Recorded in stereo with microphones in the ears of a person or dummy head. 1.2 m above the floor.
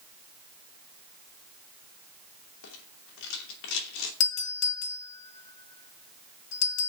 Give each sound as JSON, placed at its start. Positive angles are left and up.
{"t": 2.6, "sound": "a rattle", "side_deg": 75, "distance_m": 2.0}
{"t": 4.2, "sound": "a doorbell", "side_deg": 60, "distance_m": 2.0}